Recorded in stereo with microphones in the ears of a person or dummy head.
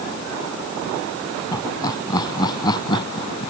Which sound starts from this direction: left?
Laughter, at 1.5 s.